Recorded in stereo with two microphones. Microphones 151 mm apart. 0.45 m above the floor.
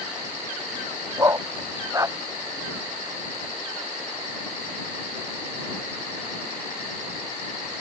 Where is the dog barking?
20° right (ahead or behind).